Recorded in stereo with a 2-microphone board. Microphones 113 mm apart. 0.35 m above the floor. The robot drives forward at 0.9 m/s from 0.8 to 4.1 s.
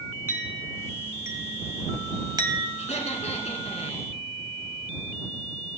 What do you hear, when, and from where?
0.3 s a clink: 20° right (ahead or behind), 2.5 m; by 2.7 s 40° right (ahead or behind), 1.3 m
2.8 s laughter: 75° left (ahead or behind), 4 m; by 4.1 s 70° left (ahead or behind), 4 m